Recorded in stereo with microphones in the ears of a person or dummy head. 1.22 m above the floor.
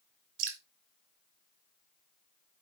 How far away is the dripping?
About 3 m.